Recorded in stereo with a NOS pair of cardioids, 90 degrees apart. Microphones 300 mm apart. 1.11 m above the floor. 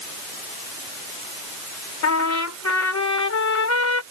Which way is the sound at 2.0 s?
60° left.